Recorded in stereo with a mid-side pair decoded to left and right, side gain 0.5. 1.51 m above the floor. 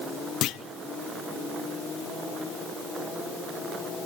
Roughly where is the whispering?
I don't hear whispering.